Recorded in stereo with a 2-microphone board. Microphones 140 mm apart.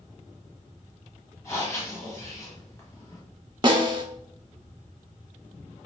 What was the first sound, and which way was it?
Breathing, 20° left (ahead or behind).